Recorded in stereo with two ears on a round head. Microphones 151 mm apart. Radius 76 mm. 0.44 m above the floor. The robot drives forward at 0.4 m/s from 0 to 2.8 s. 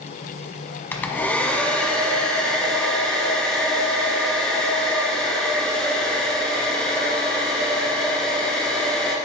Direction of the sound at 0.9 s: 10° left (ahead or behind).